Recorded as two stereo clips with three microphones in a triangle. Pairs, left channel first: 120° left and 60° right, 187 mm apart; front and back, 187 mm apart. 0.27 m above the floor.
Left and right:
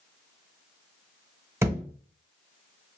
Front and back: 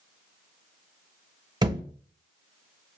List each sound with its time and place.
1.6 s a thud: 125° right, 0.7 m